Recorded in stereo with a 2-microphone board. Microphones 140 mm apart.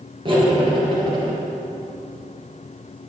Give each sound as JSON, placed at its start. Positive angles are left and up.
{"t": 0.2, "sound": "cutlery clinking", "side_deg": -40, "distance_m": 2.0}